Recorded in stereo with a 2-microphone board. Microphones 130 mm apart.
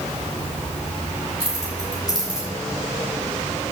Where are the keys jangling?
30° left (ahead or behind), 4 m.